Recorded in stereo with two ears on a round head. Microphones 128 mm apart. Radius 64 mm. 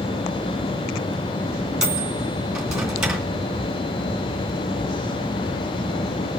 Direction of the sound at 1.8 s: 5° right (ahead or behind).